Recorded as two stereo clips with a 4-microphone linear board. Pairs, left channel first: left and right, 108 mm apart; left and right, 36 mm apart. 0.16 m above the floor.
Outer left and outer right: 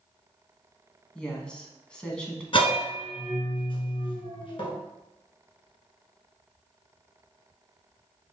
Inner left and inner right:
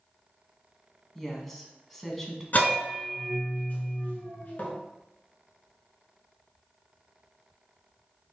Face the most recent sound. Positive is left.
turn(degrees=55)  # may be behind; listen again after turning